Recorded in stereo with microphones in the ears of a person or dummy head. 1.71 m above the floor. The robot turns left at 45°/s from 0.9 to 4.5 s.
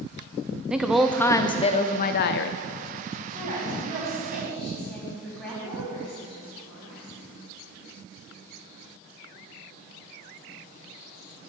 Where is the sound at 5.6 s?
45° left (ahead or behind), 4.5 m.